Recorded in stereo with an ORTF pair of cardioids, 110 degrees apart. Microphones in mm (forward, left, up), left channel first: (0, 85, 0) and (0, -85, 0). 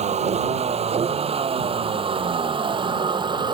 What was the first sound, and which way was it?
A vehicle, 40° right.